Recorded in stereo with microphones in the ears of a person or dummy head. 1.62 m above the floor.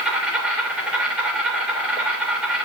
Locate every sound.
0.0 s an insect: 10° right (ahead or behind), 3 m